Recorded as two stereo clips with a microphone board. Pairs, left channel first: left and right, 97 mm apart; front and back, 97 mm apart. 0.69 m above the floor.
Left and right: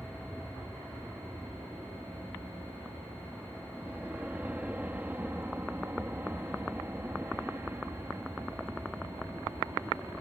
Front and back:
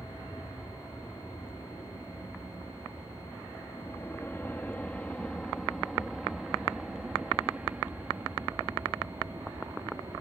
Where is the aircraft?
10° right; by 10.2 s 145° right.